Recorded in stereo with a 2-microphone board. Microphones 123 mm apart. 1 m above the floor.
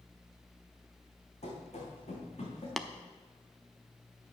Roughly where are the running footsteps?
Left.